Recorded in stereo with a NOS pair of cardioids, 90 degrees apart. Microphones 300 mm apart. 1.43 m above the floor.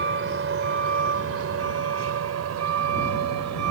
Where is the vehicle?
40° right; by 3.7 s 65° right.